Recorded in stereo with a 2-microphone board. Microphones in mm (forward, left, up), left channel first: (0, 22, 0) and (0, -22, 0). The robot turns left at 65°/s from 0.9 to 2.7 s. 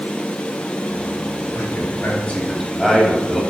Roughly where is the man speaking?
Left.